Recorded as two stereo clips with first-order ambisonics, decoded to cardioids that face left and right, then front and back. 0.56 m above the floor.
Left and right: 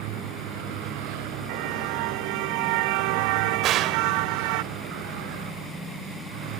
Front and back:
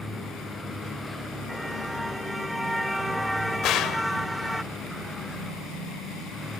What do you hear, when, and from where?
0.0 s a vehicle: 85° right
1.5 s a car horn: 90° right
3.6 s a gunshot: 40° right